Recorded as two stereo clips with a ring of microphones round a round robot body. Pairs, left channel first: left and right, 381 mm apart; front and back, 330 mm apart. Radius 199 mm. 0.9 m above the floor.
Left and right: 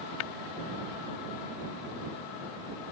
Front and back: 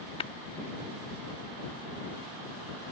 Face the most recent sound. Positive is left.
turn(degrees=75)